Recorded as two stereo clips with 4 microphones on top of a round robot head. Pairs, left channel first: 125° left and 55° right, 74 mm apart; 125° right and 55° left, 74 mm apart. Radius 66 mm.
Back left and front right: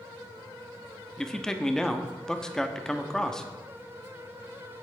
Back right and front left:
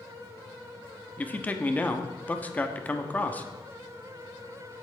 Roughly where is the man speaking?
Behind.